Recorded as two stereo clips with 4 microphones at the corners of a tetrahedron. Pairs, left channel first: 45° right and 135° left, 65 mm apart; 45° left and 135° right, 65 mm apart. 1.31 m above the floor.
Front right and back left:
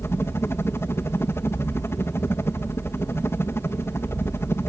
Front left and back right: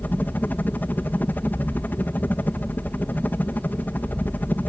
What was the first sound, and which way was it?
A helicopter, 10° right.